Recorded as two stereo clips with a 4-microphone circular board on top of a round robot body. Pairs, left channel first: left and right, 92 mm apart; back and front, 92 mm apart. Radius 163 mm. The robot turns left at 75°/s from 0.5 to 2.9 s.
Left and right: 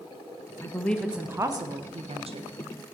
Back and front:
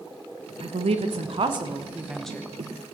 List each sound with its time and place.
0.6 s a woman speaking: 30° left, 1.4 m; by 2.5 s 110° right, 1.4 m